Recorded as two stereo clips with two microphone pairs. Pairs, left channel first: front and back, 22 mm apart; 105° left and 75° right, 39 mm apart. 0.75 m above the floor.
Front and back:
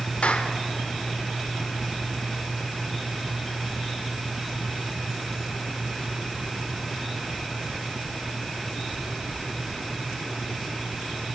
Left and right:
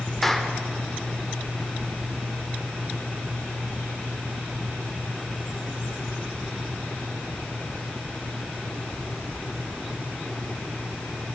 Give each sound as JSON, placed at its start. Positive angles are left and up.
{"t": 0.2, "sound": "a clap", "azimuth_deg": 20, "distance_m": 1.8}